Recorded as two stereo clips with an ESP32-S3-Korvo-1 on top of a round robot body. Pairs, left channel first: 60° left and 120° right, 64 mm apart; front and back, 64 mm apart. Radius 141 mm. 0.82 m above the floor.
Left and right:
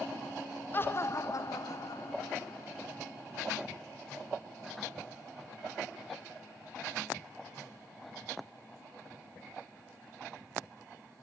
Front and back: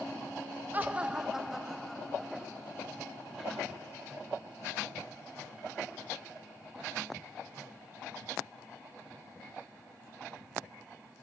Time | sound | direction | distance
0.7 | laughter | 115° left | 1.3 m